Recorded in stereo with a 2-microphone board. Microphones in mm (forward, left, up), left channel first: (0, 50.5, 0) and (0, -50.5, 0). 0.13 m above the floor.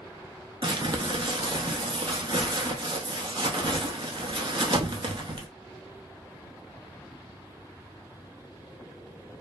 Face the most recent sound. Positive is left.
turn(degrees=-55)  # may be behind; listen again after turning